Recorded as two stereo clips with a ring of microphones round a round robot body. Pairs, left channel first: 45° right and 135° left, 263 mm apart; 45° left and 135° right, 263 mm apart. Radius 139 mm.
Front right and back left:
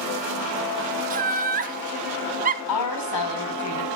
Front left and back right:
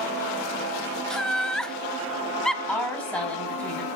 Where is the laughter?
130° left, 0.9 m.